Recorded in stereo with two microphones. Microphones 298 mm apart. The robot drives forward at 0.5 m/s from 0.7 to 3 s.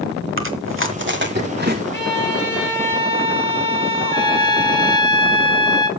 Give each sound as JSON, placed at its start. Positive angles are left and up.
{"t": 0.4, "sound": "chewing", "side_deg": -45, "distance_m": 1.5}
{"t": 1.9, "sound": "a violin", "side_deg": 40, "distance_m": 3.5}
{"t": 4.0, "sound": "a trumpet", "side_deg": 15, "distance_m": 1.9}